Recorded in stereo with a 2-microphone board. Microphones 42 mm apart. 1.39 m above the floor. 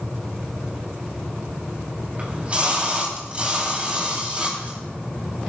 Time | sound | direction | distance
2.2 | a splash | 30° right (ahead or behind) | 4 m